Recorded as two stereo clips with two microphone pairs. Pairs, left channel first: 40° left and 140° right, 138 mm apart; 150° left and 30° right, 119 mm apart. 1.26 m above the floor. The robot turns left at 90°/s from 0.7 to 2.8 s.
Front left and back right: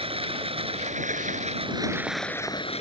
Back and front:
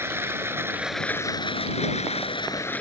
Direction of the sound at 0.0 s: 100° right.